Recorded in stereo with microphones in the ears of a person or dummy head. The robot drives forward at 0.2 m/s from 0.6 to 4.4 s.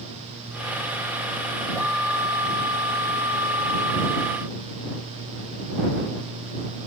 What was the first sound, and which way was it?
Only background noise.